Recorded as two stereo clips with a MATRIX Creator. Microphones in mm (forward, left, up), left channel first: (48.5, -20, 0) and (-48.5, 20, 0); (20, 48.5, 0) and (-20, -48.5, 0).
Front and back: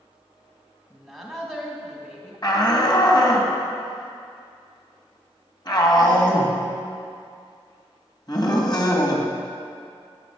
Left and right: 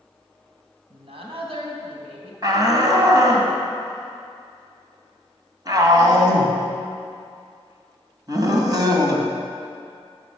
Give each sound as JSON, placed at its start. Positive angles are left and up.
{"t": 0.9, "sound": "a woman speaking", "azimuth_deg": -110, "distance_m": 3.0}
{"t": 2.4, "sound": "a shout", "azimuth_deg": -65, "distance_m": 2.5}